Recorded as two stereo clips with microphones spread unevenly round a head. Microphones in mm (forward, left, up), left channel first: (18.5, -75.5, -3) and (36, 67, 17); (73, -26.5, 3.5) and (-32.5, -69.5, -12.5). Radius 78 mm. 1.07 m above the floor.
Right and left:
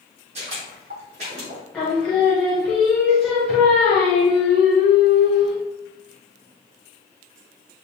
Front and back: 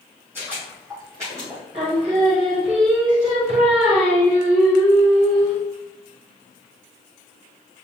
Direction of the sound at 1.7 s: 175° left.